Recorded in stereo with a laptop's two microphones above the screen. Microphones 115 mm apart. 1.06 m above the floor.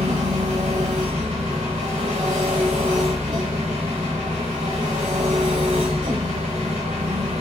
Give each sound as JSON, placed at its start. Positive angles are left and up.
{"t": 0.0, "sound": "an engine running", "side_deg": -80, "distance_m": 1.3}